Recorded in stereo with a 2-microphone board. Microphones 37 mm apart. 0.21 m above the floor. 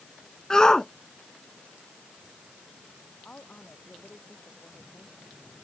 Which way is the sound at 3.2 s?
45° left (ahead or behind).